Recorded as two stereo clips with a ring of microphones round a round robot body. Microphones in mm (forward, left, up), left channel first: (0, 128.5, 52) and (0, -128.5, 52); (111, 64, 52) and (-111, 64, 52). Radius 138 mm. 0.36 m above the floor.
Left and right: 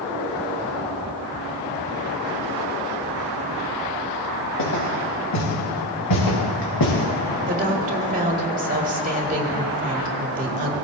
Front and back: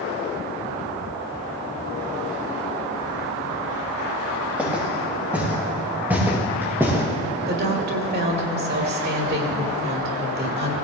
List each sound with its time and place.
4.6 s footsteps: 95° left, 5.5 m; by 7.0 s 100° left, 4 m
7.5 s a woman speaking: 145° right, 2 m